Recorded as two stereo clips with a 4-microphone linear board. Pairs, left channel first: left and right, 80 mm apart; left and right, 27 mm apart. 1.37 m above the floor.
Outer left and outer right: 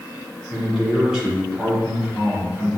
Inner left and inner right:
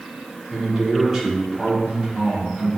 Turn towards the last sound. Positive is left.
turn(degrees=-10)  # may be behind; listen again after turning